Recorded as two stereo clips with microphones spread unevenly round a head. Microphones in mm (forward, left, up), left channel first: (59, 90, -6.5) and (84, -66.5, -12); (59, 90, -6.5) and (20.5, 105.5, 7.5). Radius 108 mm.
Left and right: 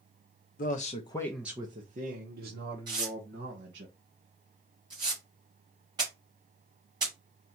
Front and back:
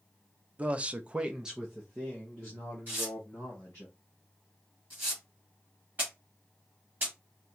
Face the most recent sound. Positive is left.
turn(degrees=-150)